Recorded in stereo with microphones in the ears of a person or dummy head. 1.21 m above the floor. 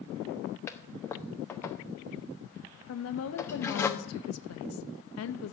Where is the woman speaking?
70° left (ahead or behind), 1.0 m.